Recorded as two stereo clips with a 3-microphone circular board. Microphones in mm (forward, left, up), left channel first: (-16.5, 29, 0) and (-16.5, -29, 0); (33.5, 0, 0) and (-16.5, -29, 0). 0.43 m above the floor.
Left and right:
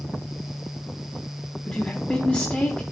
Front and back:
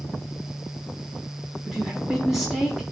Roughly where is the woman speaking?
Behind left.